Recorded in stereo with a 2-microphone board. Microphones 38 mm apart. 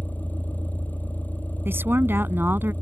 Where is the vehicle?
45° left (ahead or behind).